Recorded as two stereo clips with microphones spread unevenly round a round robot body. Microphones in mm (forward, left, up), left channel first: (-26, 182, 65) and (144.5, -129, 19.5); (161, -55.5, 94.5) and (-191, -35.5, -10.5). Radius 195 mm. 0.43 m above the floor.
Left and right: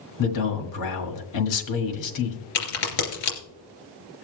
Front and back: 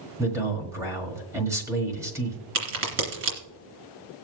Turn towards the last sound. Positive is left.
turn(degrees=135)